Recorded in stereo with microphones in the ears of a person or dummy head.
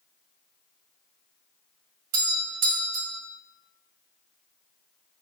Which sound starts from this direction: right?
A doorbell, at 2.1 s.